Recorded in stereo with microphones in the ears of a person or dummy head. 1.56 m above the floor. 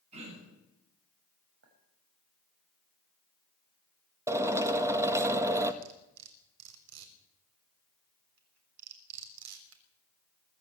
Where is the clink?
70° right (ahead or behind), 6 m.